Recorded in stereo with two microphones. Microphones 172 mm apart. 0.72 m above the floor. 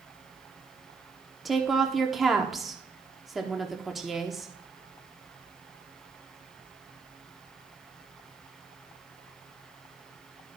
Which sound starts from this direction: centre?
A woman speaking, at 1.4 s.